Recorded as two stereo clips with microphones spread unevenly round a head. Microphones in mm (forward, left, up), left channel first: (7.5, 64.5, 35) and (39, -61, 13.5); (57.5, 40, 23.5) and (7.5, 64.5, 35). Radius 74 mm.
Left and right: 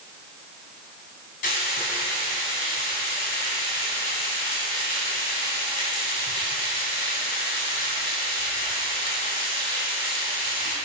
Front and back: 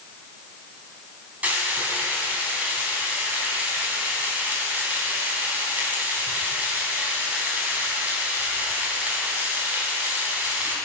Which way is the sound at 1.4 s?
95° left.